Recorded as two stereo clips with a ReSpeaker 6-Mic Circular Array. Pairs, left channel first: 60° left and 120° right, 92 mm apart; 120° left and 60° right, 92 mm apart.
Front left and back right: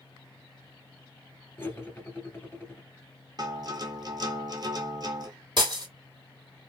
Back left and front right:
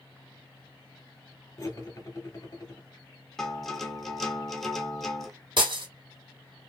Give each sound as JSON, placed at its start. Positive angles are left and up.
{"t": 1.6, "sound": "cutlery clinking", "azimuth_deg": 110, "distance_m": 0.9}
{"t": 3.4, "sound": "a guitar", "azimuth_deg": -155, "distance_m": 0.9}
{"t": 5.6, "sound": "breaking glass", "azimuth_deg": -85, "distance_m": 1.6}